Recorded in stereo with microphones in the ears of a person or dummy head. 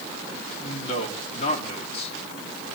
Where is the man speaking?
40° left (ahead or behind), 3 m.